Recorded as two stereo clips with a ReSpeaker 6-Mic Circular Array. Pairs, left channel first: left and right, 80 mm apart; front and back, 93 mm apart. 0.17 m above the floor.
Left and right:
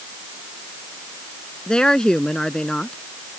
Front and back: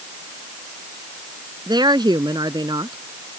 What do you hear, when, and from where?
1.7 s a woman speaking: 165° left